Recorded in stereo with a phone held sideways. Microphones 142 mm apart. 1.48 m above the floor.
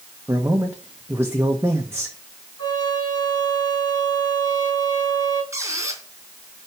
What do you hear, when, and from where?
0.3 s a man speaking: 15° right (ahead or behind), 1.3 m
2.6 s a trumpet: 30° left (ahead or behind), 5 m
5.5 s a squeak: 20° right (ahead or behind), 3.5 m